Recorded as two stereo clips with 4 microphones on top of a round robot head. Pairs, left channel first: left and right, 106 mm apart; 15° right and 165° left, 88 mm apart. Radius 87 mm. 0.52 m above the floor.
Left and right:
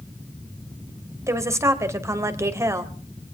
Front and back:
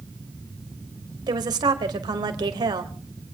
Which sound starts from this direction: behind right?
A woman speaking, at 1.3 s.